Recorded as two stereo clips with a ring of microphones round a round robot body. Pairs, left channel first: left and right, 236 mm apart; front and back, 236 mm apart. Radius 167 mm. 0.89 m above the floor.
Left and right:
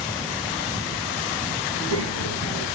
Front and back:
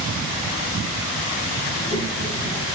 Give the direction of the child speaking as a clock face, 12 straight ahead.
4 o'clock.